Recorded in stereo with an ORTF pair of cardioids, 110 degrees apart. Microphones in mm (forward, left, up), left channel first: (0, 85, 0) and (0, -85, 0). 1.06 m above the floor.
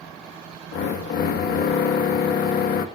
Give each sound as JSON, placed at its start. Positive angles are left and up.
{"t": 0.7, "sound": "a drill", "azimuth_deg": 65, "distance_m": 1.1}